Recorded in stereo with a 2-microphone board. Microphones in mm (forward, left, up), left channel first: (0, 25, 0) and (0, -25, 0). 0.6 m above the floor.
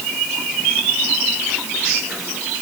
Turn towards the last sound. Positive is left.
No sound to turn to.